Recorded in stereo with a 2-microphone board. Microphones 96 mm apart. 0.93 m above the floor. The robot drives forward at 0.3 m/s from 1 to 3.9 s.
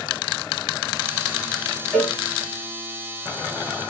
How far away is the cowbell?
About 1.7 m.